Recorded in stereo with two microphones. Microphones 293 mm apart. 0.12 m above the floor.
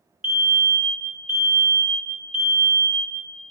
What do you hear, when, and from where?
0.2 s a fire alarm: 20° left (ahead or behind), 2 m